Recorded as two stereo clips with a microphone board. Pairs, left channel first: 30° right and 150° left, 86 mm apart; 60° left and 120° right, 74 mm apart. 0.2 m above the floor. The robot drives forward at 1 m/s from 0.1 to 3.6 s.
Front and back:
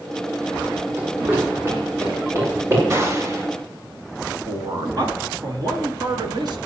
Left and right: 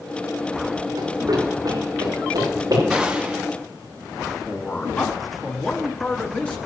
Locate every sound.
1.0 s running footsteps: 145° right, 5 m; by 2.8 s 150° right, 8 m
2.9 s a gunshot: 165° left, 1.8 m; by 3.5 s 170° left, 2 m
4.5 s a man speaking: 130° left, 2.5 m